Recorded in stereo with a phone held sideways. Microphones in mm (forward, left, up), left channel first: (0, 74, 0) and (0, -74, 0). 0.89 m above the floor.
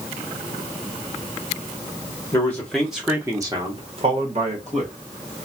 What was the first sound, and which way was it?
A man speaking, 20° left (ahead or behind).